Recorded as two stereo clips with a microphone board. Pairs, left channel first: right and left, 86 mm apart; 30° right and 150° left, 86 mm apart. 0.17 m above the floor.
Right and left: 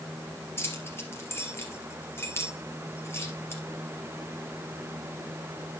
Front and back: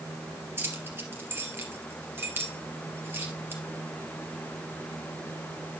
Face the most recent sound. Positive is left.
turn(degrees=-150)